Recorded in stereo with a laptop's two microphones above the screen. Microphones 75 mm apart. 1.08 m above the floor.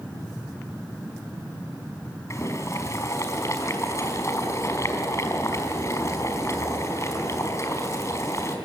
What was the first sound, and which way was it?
Boiling, 40° left (ahead or behind).